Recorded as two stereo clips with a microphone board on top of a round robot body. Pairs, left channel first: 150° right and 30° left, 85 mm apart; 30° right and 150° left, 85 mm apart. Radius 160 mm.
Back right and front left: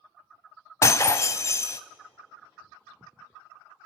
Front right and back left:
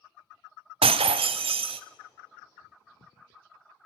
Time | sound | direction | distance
0.8 | breaking glass | 150° left | 0.5 m